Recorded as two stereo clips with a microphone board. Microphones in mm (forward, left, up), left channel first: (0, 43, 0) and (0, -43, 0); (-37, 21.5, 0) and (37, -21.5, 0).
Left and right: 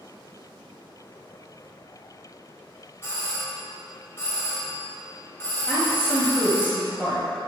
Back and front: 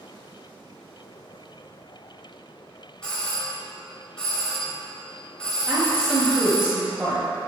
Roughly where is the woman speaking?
Ahead left.